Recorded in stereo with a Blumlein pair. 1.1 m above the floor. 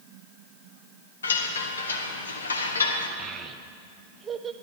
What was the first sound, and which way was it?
A chime, 70° left.